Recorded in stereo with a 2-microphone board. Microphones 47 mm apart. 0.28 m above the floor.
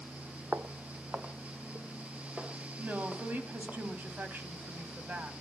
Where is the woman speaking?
40° right (ahead or behind), 2.0 m.